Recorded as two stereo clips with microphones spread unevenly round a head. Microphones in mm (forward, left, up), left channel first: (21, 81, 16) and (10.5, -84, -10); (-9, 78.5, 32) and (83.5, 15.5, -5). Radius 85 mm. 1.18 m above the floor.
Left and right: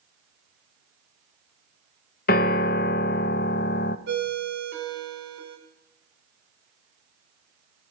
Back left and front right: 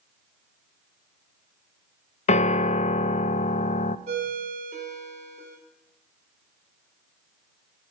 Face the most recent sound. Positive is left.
turn(degrees=-75)